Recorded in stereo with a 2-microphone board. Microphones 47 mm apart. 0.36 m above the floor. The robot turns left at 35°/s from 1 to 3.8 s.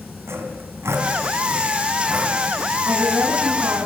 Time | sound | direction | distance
0.3 | sawing | 60° right (ahead or behind) | 4 m
2.9 | a woman speaking | 70° right | 3.5 m